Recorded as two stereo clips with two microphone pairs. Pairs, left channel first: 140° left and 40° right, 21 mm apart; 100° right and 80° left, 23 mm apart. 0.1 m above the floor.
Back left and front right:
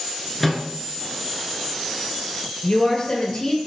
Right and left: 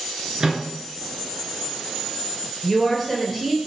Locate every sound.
0.4 s a microwave: 65° left, 1.0 m
2.6 s a woman speaking: 175° left, 1.8 m